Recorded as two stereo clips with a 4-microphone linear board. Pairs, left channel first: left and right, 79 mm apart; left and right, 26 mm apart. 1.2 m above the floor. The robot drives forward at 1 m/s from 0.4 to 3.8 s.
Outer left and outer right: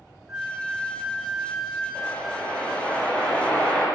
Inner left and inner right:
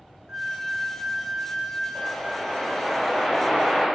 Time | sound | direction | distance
0.3 | a flute | 10° right (ahead or behind) | 1.0 m
1.9 | a whoosh | 10° left (ahead or behind) | 8.5 m